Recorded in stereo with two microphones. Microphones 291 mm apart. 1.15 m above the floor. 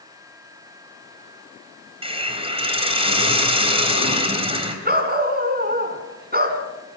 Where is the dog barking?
35° right (ahead or behind), 2.5 m.